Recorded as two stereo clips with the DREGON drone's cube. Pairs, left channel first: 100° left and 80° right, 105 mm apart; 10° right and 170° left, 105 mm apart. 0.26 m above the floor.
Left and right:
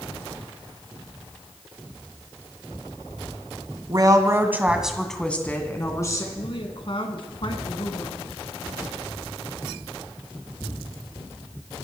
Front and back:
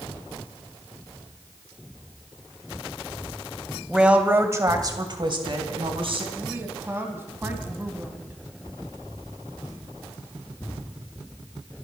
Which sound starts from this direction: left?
A woman speaking, at 6.3 s.